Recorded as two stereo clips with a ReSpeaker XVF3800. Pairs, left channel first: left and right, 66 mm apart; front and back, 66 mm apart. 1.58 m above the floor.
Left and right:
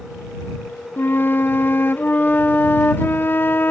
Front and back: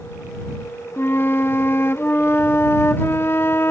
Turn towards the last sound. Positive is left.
turn(degrees=40)